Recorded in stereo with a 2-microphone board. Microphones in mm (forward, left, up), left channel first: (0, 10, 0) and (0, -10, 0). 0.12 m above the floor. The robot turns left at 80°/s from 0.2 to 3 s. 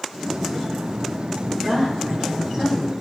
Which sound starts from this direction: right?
A woman speaking, at 1.6 s.